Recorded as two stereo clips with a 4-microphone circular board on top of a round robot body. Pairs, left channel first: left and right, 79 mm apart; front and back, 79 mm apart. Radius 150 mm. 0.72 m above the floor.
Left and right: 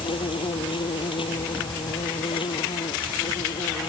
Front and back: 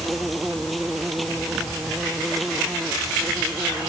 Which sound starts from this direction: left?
An insect, at 0.0 s.